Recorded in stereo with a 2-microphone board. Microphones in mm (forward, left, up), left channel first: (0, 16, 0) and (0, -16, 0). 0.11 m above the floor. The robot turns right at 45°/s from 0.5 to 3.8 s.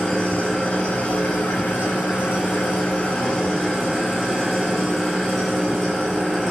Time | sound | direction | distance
0.0 | an engine running | 20° left | 7.5 m